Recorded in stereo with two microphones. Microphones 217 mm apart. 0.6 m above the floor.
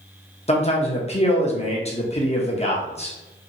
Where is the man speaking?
30° left (ahead or behind), 0.8 m.